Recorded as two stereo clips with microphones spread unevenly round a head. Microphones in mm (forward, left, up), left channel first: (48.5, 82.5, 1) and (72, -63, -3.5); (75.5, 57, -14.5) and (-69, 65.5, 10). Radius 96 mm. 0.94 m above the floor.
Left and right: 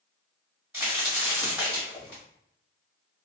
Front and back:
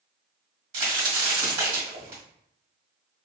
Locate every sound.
0.7 s a crack: 160° right, 1.5 m